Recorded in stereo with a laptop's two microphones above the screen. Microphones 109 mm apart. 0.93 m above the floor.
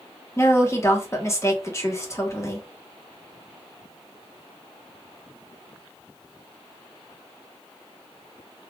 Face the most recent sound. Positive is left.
turn(degrees=25)  # may be behind; listen again after turning